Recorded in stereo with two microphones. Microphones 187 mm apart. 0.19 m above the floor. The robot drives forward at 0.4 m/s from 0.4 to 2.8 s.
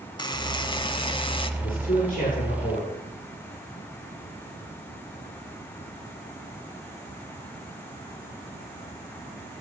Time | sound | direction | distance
0.2 | a buzzer | 25° left (ahead or behind) | 0.8 m
1.6 | a man speaking | 50° left (ahead or behind) | 8 m